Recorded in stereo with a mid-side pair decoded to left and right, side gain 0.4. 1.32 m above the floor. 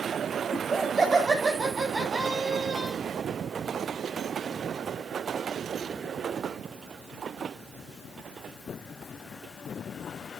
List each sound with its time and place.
0.5 s laughter: 35° right, 9 m